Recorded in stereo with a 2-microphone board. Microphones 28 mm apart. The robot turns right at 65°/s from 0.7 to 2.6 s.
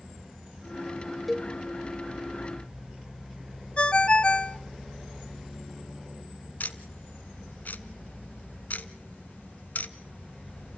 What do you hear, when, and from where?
1.3 s a cowbell: centre (ahead or behind), 0.6 m; by 1.5 s 10° left (ahead or behind), 0.6 m
3.8 s a ringtone: 40° left (ahead or behind), 0.6 m
6.6 s ticking: 75° left (ahead or behind), 0.8 m